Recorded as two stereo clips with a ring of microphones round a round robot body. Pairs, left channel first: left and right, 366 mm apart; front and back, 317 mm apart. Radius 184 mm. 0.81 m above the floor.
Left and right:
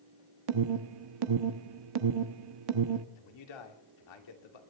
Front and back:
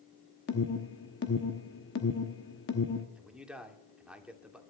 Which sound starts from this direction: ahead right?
An alarm, at 0.5 s.